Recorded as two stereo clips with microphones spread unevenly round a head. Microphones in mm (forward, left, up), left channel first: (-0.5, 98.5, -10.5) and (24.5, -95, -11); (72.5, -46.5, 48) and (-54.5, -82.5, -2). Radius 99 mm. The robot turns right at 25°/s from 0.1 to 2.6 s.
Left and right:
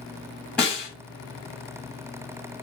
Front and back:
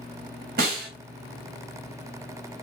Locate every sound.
0.6 s a snare drum: straight behind, 1.4 m; by 0.9 s 175° right, 1.4 m